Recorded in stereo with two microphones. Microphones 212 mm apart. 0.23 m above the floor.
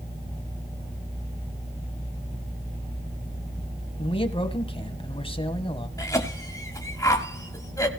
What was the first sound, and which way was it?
A man speaking, 25° left (ahead or behind).